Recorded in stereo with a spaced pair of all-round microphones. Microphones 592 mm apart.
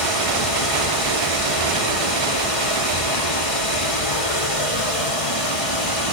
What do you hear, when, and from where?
0.0 s running water: 65° left (ahead or behind), 7 m